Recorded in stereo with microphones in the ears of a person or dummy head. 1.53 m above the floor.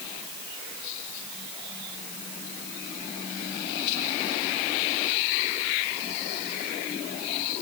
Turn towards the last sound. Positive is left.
No sound to turn to.